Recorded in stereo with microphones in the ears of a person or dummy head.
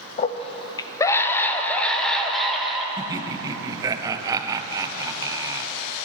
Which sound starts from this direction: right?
Laughter, at 3.0 s.